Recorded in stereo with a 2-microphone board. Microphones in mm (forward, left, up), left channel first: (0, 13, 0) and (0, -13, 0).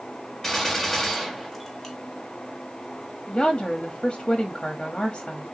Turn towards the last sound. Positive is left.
turn(degrees=25)  # may be behind; listen again after turning